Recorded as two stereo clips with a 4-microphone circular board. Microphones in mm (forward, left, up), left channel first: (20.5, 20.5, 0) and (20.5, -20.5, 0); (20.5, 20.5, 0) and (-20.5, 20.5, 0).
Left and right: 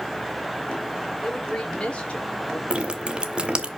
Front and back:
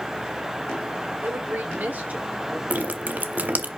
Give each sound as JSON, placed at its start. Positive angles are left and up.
{"t": 1.2, "sound": "a woman speaking", "azimuth_deg": 160, "distance_m": 2.5}
{"t": 2.7, "sound": "dripping", "azimuth_deg": -150, "distance_m": 0.8}